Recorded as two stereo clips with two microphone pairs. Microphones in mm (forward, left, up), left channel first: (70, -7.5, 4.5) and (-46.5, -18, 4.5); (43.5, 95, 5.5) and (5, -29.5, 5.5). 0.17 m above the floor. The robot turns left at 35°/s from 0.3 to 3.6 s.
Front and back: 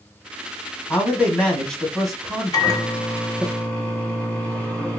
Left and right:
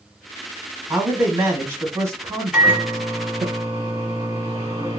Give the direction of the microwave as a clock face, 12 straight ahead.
1 o'clock.